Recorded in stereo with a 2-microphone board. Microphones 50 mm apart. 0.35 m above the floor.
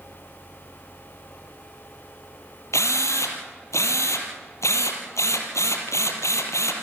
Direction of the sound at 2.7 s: 80° left.